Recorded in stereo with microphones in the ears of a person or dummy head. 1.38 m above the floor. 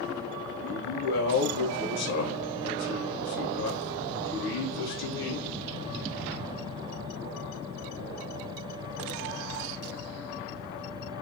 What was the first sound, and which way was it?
A man speaking, 55° left (ahead or behind).